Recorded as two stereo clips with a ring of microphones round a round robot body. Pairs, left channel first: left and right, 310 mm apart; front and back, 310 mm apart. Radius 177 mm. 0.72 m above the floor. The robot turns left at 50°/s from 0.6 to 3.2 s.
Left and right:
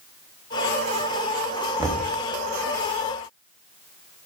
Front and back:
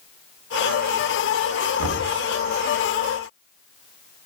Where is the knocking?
165° right, 1.1 m; by 2.1 s 175° left, 1.1 m.